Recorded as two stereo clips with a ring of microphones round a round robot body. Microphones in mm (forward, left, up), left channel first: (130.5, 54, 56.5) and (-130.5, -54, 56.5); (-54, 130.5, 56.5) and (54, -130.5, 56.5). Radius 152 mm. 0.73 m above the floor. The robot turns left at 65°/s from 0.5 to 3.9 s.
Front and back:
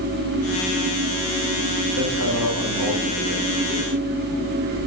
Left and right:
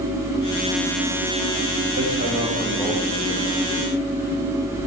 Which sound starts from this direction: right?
Hammering, at 2.0 s.